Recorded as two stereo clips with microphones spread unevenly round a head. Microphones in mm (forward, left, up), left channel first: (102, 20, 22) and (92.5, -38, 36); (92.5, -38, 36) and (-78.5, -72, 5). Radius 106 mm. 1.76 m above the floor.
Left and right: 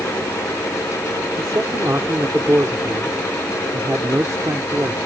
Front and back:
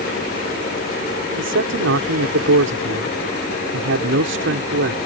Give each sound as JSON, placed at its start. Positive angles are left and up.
{"t": 1.4, "sound": "a man speaking", "azimuth_deg": -170}